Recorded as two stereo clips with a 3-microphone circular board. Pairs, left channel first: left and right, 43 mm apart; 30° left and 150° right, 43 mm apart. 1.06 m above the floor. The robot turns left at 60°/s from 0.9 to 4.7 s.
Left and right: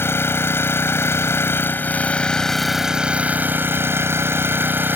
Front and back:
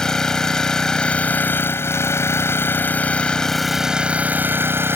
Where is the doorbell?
No doorbell in this recording.